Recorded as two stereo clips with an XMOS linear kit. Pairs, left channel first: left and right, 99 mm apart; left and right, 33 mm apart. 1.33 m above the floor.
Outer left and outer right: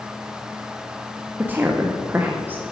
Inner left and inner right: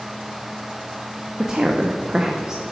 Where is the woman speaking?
20° right (ahead or behind), 0.8 m.